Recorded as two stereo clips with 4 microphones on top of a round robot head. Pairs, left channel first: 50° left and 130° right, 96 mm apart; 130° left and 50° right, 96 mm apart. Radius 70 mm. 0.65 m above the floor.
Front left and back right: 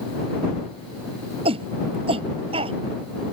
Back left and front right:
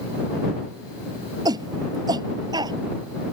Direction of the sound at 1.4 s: 100° right.